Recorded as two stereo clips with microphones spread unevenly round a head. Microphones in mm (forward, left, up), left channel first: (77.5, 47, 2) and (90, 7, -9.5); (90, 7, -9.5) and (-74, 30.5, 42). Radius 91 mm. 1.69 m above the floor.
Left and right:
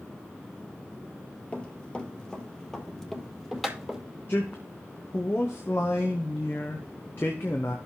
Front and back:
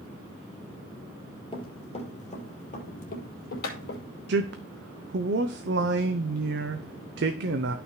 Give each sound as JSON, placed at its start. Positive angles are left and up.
{"t": 1.5, "sound": "running footsteps", "azimuth_deg": 60, "distance_m": 3.0}
{"t": 4.3, "sound": "a man speaking", "azimuth_deg": 165, "distance_m": 0.7}